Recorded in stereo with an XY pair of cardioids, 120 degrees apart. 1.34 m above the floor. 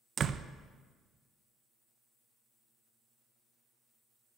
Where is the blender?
I don't hear a blender.